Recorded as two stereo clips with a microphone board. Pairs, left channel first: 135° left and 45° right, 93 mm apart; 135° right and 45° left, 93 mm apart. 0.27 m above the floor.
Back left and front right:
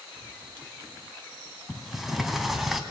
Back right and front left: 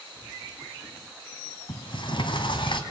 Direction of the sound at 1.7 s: 130° right.